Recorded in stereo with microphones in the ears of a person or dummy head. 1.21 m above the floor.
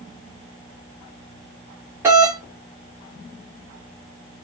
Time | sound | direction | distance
2.0 | a doorbell | 10° right (ahead or behind) | 0.9 m